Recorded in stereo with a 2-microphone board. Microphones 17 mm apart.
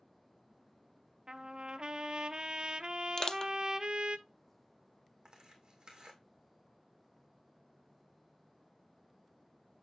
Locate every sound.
1.3 s a trumpet: 55° right (ahead or behind), 0.5 m
3.2 s crushing: 35° left (ahead or behind), 0.5 m
5.2 s tearing paper: 50° right (ahead or behind), 2 m